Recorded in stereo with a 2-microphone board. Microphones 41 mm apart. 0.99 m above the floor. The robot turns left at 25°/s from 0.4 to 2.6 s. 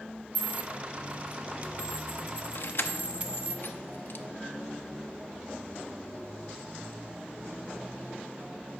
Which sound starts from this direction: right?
A dropped coin, at 0.3 s.